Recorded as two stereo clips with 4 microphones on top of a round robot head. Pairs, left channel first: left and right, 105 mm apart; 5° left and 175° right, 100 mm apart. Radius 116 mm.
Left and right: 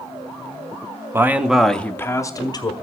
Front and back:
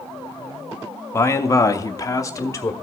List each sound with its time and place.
1.1 s a man speaking: 35° right, 0.8 m; by 2.7 s 60° left, 1.0 m